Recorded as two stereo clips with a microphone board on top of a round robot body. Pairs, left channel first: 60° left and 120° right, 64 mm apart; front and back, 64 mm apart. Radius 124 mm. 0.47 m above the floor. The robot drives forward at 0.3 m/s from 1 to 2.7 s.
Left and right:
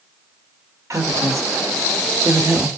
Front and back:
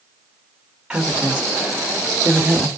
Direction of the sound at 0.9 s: 105° right.